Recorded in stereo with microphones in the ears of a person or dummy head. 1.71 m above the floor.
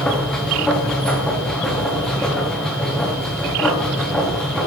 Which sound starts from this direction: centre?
A machine running, at 0.0 s.